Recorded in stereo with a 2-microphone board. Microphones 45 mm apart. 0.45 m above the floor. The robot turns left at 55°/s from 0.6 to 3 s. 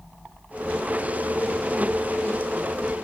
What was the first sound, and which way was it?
Only background noise.